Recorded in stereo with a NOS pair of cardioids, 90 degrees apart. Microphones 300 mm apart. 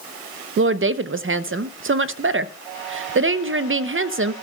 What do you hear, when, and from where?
0.6 s a woman speaking: 45° right, 0.9 m